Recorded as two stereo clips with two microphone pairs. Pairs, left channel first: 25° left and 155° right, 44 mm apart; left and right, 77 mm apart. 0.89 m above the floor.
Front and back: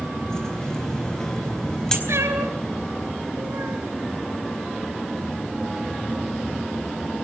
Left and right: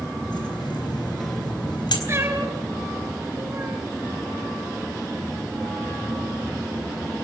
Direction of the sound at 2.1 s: 150° right.